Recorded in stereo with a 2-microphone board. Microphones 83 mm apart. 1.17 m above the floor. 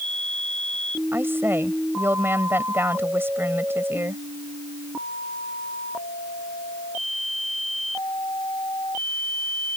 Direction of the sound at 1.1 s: 25° right (ahead or behind).